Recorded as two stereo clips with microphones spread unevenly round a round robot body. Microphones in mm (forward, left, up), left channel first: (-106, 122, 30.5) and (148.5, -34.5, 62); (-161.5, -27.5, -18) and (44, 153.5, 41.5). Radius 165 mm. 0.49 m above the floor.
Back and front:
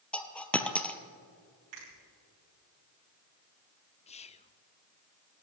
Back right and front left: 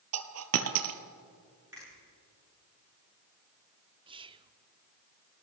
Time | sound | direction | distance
0.1 | a dropped coin | 60° left | 1.1 m
1.7 | a finger snap | 45° right | 7 m
4.1 | whispering | 120° left | 0.7 m